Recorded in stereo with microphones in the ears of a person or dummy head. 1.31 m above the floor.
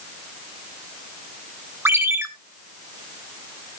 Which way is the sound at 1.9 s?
10° right (ahead or behind).